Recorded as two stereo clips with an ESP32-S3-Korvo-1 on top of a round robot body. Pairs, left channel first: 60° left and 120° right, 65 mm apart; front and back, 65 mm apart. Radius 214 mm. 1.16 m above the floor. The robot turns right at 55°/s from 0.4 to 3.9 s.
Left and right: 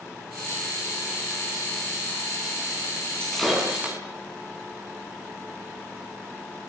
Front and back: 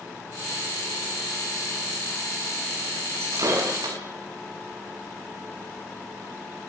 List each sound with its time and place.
3.2 s breaking glass: 135° left, 9.5 m; by 4.0 s 175° left, 9.5 m